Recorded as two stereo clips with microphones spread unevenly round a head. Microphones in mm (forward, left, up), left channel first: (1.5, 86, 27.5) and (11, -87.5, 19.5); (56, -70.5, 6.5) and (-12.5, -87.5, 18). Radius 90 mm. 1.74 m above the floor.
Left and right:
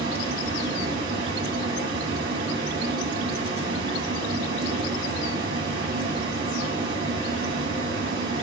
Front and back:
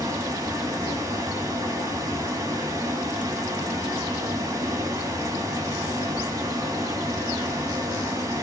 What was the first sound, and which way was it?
A fan, 130° right.